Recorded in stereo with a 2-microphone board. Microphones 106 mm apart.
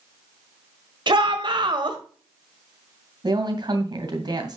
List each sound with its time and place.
1.1 s a shout: 50° right (ahead or behind), 1.5 m
3.2 s a woman speaking: 40° right (ahead or behind), 2.5 m